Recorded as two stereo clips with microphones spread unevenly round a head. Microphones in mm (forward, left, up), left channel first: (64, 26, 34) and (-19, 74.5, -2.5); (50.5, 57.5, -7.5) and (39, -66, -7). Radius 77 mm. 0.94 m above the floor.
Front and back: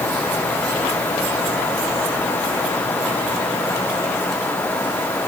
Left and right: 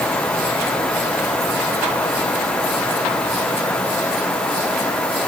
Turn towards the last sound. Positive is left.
No sound to turn to.